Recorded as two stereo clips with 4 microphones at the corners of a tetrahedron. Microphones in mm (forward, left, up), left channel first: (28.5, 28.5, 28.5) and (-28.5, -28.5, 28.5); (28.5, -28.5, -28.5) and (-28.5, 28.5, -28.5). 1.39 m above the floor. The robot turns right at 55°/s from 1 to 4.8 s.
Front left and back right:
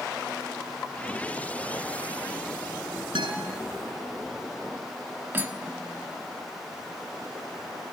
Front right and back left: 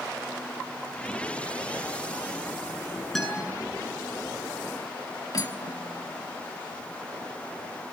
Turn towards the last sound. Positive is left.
turn(degrees=-75)